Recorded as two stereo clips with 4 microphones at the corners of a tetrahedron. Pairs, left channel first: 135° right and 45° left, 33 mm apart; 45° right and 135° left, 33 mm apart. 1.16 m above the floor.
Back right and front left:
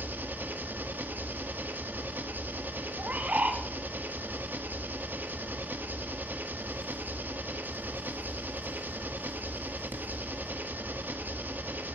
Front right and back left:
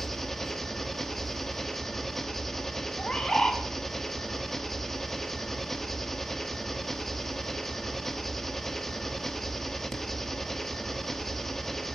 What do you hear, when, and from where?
0.0 s an engine running: 35° left, 1.4 m
3.0 s a bird: 15° left, 2.5 m